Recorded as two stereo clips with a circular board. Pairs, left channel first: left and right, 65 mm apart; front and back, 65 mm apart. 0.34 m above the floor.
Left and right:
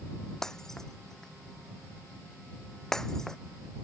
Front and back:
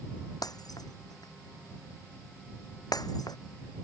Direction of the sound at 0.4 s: 5° left.